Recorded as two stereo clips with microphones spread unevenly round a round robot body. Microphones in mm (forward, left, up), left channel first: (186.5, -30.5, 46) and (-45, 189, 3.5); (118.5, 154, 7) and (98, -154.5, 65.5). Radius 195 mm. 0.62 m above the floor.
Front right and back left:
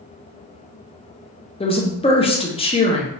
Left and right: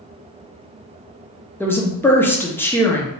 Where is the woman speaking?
30° left, 0.7 m.